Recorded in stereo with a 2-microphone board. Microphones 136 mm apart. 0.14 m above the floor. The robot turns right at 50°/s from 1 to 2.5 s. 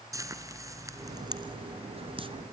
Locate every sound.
0.1 s frying: 25° right (ahead or behind), 1.2 m; by 2.3 s 40° right (ahead or behind), 1.2 m